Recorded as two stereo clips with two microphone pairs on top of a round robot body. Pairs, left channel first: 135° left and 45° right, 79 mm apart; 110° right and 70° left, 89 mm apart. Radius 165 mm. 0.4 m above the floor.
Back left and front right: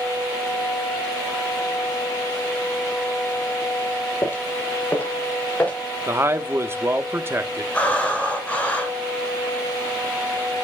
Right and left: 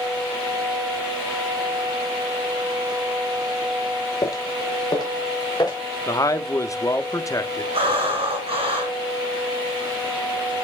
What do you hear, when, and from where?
4.2 s footsteps: 165° right, 0.7 m; by 5.8 s 155° right, 3 m
6.1 s a man speaking: 90° right, 1.2 m
7.7 s breathing: 60° left, 4.5 m